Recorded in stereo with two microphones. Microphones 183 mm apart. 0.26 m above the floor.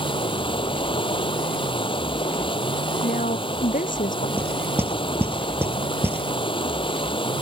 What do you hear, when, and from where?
0.0 s running water: 30° left (ahead or behind)
3.0 s a woman speaking: 45° left (ahead or behind)
4.4 s knocking: 10° right (ahead or behind)